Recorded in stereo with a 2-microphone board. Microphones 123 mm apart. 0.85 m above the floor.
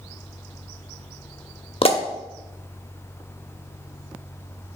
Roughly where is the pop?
Left.